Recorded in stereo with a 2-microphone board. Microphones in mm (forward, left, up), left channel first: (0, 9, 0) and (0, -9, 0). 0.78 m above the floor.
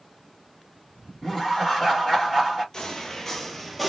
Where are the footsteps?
40° left (ahead or behind), 1.0 m; by 3.9 s centre (ahead or behind), 0.8 m.